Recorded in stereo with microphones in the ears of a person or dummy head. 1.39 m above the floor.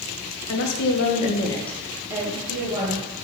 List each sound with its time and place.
0.5 s a woman speaking: 75° left (ahead or behind), 0.9 m; by 3.0 s 35° right (ahead or behind), 1.4 m